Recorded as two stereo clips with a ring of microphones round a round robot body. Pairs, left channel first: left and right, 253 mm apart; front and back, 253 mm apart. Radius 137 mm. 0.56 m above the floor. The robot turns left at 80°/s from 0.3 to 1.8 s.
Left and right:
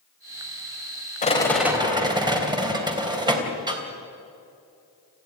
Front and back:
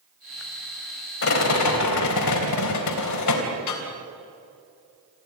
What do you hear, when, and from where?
1.2 s a rattle: 30° left, 3.5 m; by 3.8 s 20° right, 3.5 m